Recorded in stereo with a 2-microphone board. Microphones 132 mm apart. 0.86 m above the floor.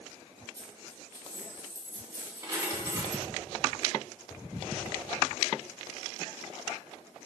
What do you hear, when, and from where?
0.6 s a dropped coin: 25° right (ahead or behind), 2 m